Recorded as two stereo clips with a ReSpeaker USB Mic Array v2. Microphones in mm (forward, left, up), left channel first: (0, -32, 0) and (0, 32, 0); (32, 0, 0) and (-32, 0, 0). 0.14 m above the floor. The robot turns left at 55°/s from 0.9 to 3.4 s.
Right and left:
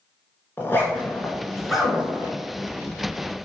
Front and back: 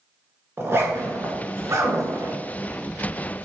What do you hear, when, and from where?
0.6 s a zipper: 140° right, 1.7 m; by 2.4 s 140° left, 1.7 m